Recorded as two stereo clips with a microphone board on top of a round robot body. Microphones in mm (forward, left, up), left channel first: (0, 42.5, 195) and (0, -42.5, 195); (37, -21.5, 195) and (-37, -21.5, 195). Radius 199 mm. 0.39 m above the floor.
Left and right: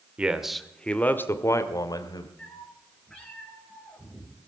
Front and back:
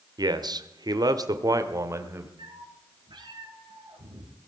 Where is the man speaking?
165° right, 1.9 m; by 2.3 s 125° left, 2.5 m.